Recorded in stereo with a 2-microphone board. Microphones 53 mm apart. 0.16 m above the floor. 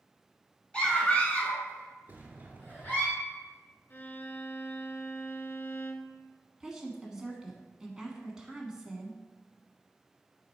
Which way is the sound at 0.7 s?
20° left (ahead or behind).